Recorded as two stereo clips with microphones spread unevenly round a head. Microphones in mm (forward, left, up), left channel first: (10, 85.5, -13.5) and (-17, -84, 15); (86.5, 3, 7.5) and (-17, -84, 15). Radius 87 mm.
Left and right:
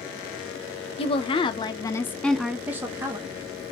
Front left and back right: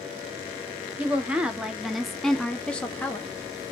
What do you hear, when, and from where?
1.0 s a woman speaking: 140° left, 0.8 m; by 3.4 s 40° right, 0.8 m